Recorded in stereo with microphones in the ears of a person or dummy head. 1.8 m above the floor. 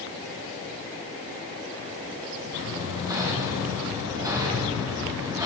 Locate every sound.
2.7 s hammering: 15° right (ahead or behind), 3 m